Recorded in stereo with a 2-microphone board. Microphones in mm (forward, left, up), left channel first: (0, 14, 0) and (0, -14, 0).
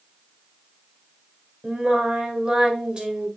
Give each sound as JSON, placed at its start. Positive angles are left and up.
{"t": 1.6, "sound": "singing", "side_deg": -30, "distance_m": 2.5}